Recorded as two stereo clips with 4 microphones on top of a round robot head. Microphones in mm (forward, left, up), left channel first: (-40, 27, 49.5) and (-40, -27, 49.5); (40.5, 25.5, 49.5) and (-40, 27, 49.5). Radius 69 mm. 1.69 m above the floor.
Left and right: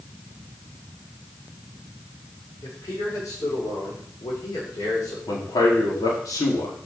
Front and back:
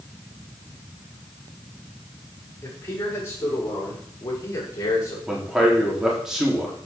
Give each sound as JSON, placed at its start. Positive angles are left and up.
{"t": 2.6, "sound": "a man speaking", "azimuth_deg": 60, "distance_m": 7.0}
{"t": 5.3, "sound": "a man speaking", "azimuth_deg": 95, "distance_m": 4.5}